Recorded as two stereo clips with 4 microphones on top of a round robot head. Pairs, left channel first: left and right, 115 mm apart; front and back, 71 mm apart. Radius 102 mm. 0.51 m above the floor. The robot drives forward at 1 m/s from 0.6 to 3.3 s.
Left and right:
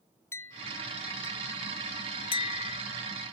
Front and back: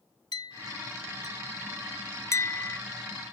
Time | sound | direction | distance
0.3 | a clink | 20° left | ?